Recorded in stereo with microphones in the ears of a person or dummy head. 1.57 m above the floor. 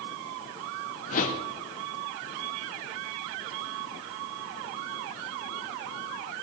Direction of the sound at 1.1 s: 50° left (ahead or behind).